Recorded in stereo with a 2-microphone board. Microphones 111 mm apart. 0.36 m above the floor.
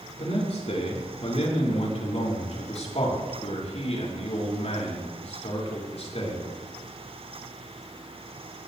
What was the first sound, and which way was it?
A man speaking, 65° left (ahead or behind).